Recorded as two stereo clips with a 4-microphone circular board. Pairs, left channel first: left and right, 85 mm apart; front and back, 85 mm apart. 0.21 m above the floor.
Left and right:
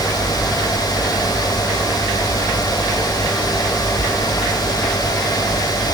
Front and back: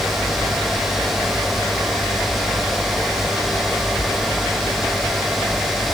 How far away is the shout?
No shout in this recording.